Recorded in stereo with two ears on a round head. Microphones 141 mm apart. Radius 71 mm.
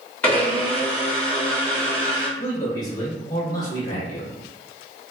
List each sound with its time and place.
0.2 s a blender: 10° left (ahead or behind), 1.4 m
2.4 s a man speaking: 25° left (ahead or behind), 0.8 m